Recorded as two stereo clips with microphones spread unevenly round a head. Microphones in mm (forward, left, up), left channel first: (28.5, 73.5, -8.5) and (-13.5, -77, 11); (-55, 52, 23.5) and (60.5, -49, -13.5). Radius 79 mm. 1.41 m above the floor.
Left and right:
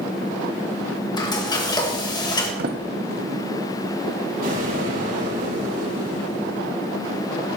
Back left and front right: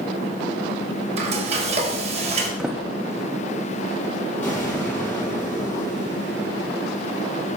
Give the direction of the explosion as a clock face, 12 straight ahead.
5 o'clock.